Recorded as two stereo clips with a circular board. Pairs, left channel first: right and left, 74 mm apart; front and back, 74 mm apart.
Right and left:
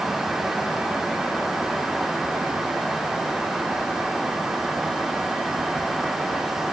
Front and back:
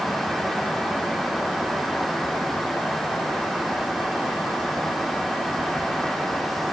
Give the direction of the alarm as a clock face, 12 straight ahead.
No alarm in this recording.